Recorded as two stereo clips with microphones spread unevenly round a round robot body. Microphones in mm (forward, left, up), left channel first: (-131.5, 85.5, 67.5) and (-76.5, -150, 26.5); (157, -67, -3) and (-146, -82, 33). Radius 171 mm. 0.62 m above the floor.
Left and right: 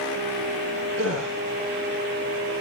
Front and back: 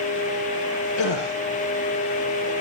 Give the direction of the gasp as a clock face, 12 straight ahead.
1 o'clock.